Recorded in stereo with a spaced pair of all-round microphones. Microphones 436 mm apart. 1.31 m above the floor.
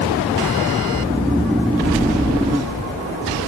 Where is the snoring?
Centre (ahead or behind), 0.6 m.